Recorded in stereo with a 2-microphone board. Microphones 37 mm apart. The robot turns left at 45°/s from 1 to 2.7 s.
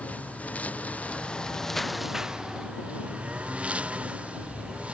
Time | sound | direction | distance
0.0 | a lawn mower | 40° left | ?